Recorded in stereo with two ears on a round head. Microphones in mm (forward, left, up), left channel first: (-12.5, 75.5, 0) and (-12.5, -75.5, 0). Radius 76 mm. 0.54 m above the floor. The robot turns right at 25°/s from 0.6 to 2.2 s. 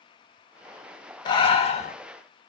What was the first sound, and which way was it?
Breathing, 25° left (ahead or behind).